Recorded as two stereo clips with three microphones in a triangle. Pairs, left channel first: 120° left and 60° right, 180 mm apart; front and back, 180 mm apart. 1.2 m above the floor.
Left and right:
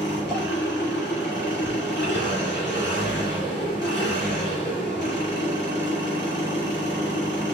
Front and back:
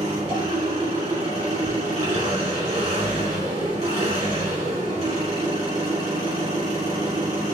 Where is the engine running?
125° left, 2.5 m.